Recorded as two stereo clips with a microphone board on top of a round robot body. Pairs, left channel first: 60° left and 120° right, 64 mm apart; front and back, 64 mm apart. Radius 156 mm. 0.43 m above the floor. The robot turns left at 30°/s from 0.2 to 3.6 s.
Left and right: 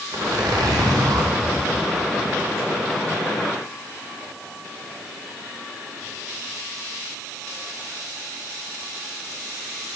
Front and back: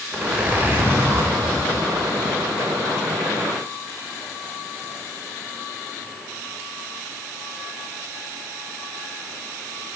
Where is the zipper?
100° right, 0.8 m; by 1.3 s 135° right, 0.8 m.